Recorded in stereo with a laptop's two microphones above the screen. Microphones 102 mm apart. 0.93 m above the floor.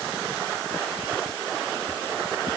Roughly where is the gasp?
No gasp in this recording.